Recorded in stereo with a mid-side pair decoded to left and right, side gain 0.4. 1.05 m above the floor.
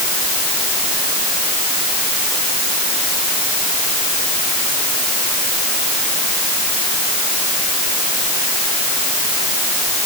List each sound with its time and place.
Only background noise.